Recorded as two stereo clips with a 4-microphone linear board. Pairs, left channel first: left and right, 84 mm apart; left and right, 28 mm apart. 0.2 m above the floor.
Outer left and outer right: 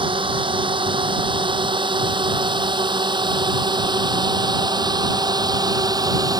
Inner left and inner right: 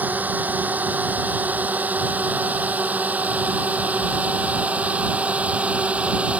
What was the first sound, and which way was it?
A drone, 75° right (ahead or behind).